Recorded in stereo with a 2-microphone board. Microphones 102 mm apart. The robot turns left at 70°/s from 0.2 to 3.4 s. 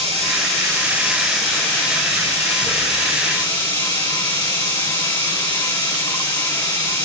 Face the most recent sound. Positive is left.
turn(degrees=35)